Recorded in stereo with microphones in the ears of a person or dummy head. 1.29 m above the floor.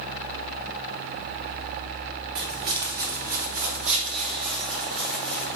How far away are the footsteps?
About 2 m.